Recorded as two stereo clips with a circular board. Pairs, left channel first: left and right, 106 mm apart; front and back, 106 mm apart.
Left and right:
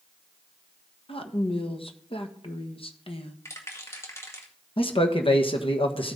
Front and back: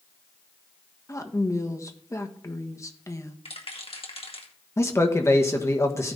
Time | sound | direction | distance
1.1 | a woman speaking | 60° left | 1.4 m
3.5 | a rattle | 25° left | 2 m
4.8 | a man speaking | 65° left | 1.4 m